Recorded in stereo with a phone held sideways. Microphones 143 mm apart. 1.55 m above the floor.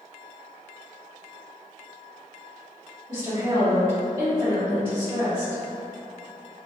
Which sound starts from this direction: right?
A woman speaking, at 3.1 s.